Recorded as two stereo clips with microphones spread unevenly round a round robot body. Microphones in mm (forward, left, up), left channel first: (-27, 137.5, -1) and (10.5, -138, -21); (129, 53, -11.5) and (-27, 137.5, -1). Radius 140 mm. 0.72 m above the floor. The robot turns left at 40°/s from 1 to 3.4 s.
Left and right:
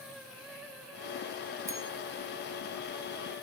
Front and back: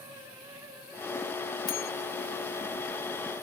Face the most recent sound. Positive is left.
turn(degrees=-70)